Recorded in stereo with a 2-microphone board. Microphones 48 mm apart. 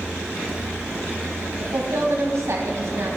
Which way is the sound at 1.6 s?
60° right (ahead or behind).